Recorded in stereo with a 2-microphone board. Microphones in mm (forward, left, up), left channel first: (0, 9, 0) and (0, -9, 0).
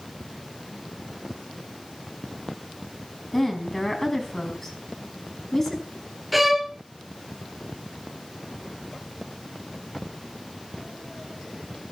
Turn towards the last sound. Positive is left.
turn(degrees=-5)  # may be behind; listen again after turning